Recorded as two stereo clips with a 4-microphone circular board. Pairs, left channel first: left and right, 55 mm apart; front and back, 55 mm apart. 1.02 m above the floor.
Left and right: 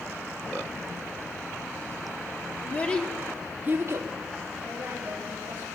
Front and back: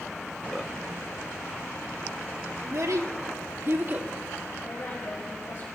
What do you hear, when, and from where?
2.6 s a child speaking: 150° left, 1.5 m; by 4.1 s 115° right, 1.4 m
4.6 s a woman speaking: 35° right, 5 m